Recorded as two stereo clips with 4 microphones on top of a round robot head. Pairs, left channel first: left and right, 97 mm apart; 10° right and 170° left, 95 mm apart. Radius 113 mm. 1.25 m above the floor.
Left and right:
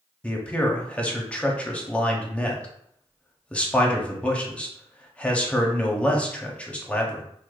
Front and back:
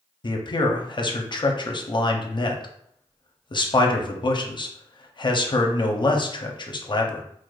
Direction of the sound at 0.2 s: 15° left.